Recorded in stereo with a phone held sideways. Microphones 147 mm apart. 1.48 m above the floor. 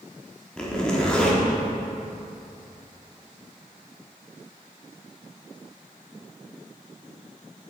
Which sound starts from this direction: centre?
A zipper, at 0.6 s.